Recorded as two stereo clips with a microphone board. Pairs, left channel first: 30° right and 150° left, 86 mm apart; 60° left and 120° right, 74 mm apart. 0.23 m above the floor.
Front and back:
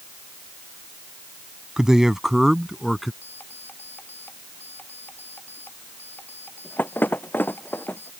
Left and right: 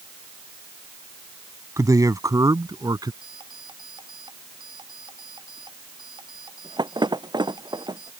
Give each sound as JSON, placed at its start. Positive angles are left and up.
{"t": 1.8, "sound": "a man speaking", "azimuth_deg": -130}
{"t": 3.2, "sound": "an alarm clock", "azimuth_deg": -100}